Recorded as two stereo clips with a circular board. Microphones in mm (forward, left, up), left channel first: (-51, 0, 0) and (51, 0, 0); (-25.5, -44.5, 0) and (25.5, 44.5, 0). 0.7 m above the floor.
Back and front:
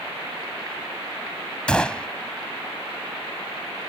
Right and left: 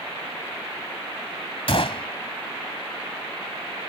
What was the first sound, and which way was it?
A gunshot, 100° right.